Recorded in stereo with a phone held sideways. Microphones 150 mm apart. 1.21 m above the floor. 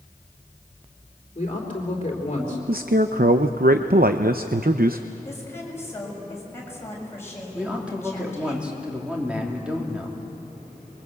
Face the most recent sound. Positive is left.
turn(degrees=-5)  # may be behind; listen again after turning